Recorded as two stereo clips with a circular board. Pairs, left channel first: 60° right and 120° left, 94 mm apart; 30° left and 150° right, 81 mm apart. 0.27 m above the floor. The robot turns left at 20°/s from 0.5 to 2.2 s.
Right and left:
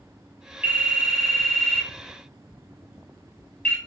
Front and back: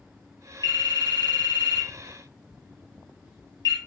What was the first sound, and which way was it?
A phone ringing, 45° left.